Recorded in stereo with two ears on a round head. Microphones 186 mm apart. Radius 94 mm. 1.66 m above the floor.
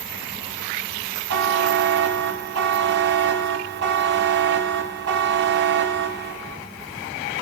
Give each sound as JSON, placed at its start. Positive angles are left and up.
{"t": 1.3, "sound": "a buzzer", "side_deg": -55, "distance_m": 1.0}